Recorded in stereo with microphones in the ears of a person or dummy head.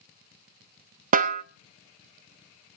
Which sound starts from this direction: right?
A snare drum, at 1.1 s.